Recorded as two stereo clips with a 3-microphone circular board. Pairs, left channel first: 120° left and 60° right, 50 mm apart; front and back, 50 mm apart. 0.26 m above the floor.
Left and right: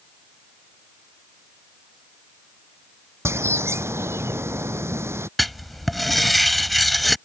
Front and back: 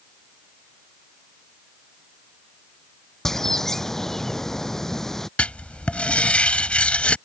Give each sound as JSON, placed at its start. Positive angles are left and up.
{"t": 3.2, "sound": "a bird", "azimuth_deg": -80}
{"t": 5.4, "sound": "writing", "azimuth_deg": 35}